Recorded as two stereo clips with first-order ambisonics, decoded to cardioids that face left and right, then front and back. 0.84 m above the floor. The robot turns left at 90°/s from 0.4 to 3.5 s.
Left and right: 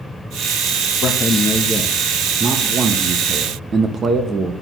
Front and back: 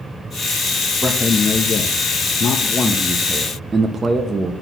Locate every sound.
1.0 s a man speaking: 95° left, 0.7 m; by 4.5 s 130° right, 0.7 m